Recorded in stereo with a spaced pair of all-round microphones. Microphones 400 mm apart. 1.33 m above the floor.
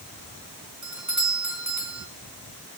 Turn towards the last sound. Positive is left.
turn(degrees=-45)  # may be behind; listen again after turning